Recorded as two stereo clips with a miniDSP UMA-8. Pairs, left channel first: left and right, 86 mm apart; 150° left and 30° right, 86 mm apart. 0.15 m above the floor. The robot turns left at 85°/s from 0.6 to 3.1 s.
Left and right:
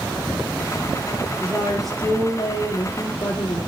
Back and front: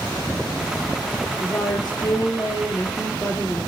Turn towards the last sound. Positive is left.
turn(degrees=75)